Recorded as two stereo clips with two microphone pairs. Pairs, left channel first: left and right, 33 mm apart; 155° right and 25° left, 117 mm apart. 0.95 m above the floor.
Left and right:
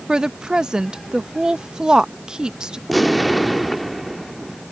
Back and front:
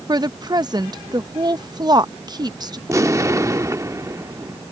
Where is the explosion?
10° right.